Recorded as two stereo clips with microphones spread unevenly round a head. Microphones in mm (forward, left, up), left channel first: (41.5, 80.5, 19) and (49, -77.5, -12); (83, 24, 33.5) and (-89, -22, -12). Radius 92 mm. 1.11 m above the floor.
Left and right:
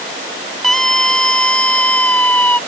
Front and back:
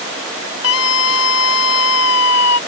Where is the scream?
5° left; by 2.6 s 15° left.